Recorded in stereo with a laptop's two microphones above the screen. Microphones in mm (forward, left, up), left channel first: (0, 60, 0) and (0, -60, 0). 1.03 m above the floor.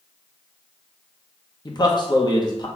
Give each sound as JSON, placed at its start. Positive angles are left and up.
{"t": 1.6, "sound": "a man speaking", "side_deg": 35, "distance_m": 0.8}